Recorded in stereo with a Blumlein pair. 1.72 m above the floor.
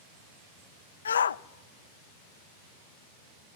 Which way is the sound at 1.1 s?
70° left.